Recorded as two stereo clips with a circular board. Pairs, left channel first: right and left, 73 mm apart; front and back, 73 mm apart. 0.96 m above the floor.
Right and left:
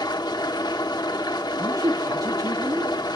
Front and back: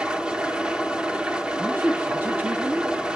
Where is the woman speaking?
125° left, 1.2 m.